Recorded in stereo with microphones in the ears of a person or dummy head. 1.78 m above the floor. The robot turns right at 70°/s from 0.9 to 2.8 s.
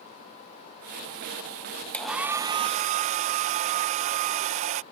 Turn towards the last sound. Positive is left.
turn(degrees=-130)